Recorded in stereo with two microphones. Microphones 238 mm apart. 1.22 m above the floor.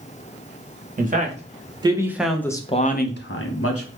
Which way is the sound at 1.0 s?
35° right (ahead or behind).